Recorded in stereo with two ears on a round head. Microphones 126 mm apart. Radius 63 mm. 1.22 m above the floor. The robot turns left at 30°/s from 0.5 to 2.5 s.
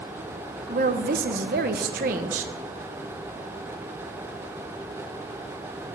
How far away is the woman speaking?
About 1.0 m.